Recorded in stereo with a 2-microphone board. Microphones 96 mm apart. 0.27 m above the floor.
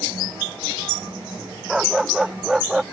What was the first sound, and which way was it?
A dog barking, 5° right (ahead or behind).